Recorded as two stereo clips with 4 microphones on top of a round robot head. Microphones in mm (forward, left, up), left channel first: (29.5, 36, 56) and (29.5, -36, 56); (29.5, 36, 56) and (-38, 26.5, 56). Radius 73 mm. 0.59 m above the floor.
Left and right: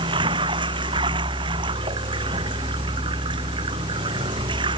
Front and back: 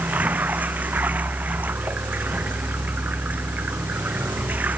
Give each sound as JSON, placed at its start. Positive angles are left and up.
{"t": 0.0, "sound": "running water", "azimuth_deg": -100}